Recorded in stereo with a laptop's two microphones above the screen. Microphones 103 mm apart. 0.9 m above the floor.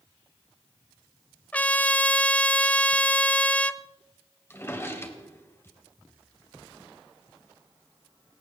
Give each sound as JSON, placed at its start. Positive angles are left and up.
{"t": 1.5, "sound": "a trumpet", "side_deg": 15, "distance_m": 0.6}
{"t": 4.5, "sound": "a drawer", "side_deg": 25, "distance_m": 2.0}